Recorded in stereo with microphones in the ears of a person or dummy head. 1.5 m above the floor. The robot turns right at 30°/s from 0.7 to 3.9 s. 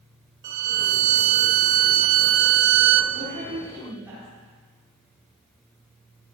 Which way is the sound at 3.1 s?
45° right (ahead or behind).